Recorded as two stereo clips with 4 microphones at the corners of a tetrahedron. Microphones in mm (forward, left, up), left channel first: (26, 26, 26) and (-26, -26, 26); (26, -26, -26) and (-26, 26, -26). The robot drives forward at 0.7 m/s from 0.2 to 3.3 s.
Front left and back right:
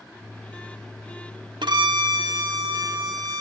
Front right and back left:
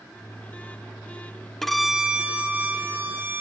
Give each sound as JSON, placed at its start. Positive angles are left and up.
{"t": 1.6, "sound": "a violin", "azimuth_deg": -130, "distance_m": 0.6}